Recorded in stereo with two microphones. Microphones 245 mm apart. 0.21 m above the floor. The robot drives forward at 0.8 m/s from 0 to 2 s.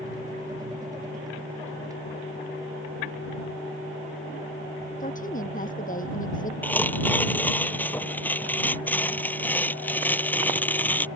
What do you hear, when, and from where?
5.0 s a woman speaking: 35° left (ahead or behind)
6.6 s tearing paper: 5° left (ahead or behind)